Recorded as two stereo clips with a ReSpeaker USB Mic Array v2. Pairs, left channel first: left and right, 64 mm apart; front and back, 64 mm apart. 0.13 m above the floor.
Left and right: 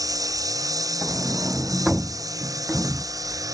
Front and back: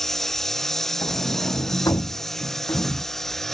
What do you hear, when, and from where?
0.0 s a lawn mower: 85° right
1.0 s a sliding door: 10° right